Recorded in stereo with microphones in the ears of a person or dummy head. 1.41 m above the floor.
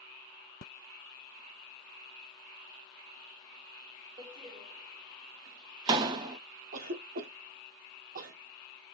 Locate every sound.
4.2 s a door slam: 15° right (ahead or behind), 0.6 m
6.7 s a cough: 40° right (ahead or behind), 0.8 m